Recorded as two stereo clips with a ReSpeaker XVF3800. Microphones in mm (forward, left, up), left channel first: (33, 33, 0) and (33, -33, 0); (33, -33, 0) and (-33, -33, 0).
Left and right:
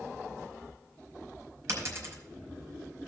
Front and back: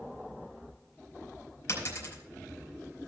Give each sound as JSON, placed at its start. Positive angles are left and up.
{"t": 1.7, "sound": "a dropped coin", "azimuth_deg": -45, "distance_m": 4.5}